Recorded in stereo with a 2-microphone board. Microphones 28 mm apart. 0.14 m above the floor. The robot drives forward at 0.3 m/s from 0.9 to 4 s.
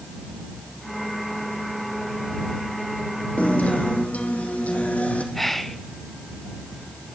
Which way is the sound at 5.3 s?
5° left (ahead or behind).